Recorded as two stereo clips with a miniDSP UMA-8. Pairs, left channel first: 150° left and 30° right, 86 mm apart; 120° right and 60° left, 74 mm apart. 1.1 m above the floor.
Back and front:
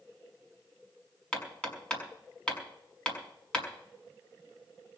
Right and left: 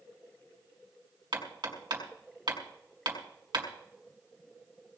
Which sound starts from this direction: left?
Hammering, at 1.3 s.